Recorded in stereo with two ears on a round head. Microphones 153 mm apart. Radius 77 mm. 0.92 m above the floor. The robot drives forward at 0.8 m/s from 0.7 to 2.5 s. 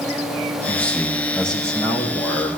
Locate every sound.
0.7 s a man speaking: 10° left (ahead or behind), 0.9 m; by 2.5 s 5° left (ahead or behind), 2.0 m